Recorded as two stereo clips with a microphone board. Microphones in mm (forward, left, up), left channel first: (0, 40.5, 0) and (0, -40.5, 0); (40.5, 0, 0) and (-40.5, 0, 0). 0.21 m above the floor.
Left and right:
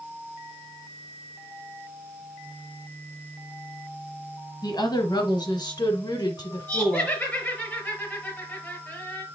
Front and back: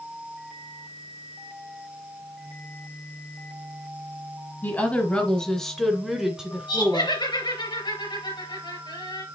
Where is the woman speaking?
65° left, 1.8 m; by 7.2 s 125° left, 1.6 m.